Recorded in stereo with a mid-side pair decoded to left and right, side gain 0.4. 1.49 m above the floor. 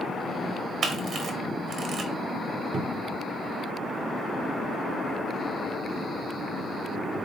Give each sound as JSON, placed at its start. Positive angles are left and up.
{"t": 0.8, "sound": "a camera shutter", "azimuth_deg": -65, "distance_m": 1.2}
{"t": 2.7, "sound": "a cupboard door", "azimuth_deg": -55, "distance_m": 0.8}